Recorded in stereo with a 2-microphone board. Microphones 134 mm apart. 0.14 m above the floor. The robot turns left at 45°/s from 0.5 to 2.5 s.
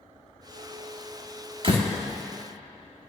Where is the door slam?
45° right (ahead or behind), 2 m; by 1.9 s 55° right (ahead or behind), 2 m.